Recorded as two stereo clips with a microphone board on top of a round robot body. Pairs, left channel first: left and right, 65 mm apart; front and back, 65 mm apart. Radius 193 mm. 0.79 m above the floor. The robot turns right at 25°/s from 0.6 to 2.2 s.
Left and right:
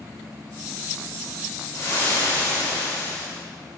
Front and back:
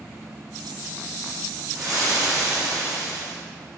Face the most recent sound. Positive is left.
turn(degrees=150)